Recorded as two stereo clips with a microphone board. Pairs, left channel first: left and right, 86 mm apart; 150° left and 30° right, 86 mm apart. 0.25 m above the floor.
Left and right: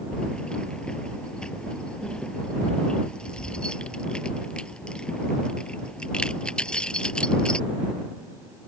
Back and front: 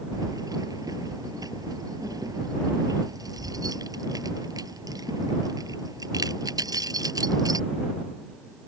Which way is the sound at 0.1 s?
10° left.